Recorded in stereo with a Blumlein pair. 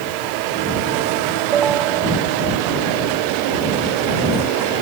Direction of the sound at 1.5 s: 25° right.